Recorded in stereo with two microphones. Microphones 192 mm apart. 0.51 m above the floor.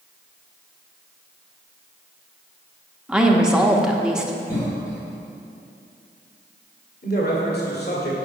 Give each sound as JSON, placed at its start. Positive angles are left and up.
{"t": 3.1, "sound": "a woman speaking", "side_deg": -5, "distance_m": 0.8}
{"t": 4.5, "sound": "a cough", "side_deg": 20, "distance_m": 2.0}
{"t": 7.0, "sound": "a man speaking", "side_deg": 60, "distance_m": 1.7}